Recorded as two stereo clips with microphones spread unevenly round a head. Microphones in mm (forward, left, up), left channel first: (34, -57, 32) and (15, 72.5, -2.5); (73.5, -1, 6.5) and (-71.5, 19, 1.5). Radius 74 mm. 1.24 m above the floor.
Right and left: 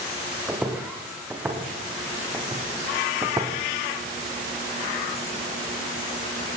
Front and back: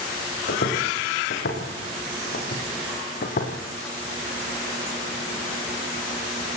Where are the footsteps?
15° left, 6 m; by 3.5 s 25° left, 3.5 m.